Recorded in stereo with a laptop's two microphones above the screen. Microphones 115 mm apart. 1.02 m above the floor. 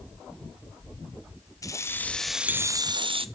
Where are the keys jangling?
30° left (ahead or behind), 0.7 m; by 3.3 s 60° right (ahead or behind), 0.6 m.